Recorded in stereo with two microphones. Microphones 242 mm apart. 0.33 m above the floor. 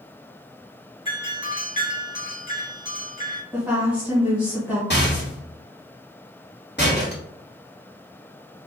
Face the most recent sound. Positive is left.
turn(degrees=45)  # may be behind; listen again after turning